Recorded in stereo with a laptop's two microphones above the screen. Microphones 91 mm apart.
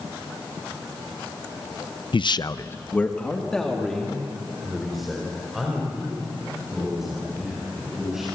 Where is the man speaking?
65° left (ahead or behind), 0.6 m; by 8.3 s 5° right (ahead or behind), 7.5 m.